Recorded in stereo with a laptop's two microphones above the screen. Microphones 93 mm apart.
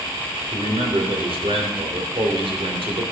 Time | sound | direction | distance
0.5 | a man speaking | 80° right | 3 m